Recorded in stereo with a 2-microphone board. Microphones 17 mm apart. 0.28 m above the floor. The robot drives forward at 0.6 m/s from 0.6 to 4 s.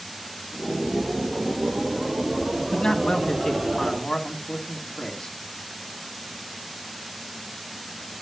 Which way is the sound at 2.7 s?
55° left (ahead or behind).